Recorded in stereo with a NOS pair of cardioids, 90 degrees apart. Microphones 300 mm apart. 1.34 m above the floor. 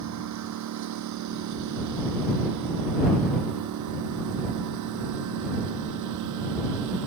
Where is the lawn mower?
70° right; by 7.1 s 80° right.